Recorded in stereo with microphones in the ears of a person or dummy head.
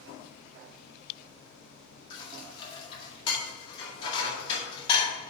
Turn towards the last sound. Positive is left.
turn(degrees=30)  # may be behind; listen again after turning